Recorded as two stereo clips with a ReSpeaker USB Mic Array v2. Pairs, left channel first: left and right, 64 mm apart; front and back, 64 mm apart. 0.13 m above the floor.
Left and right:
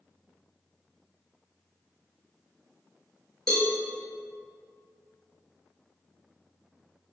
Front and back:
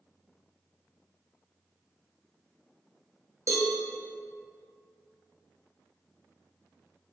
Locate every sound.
3.5 s a cowbell: 170° left, 1.3 m